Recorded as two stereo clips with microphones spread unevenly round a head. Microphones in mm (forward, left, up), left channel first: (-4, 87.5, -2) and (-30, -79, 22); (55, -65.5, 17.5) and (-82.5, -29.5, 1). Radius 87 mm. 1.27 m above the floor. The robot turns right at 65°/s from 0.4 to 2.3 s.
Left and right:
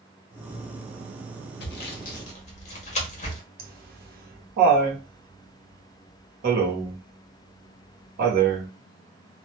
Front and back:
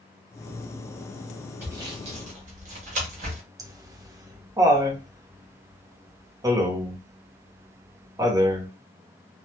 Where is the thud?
No thud in this recording.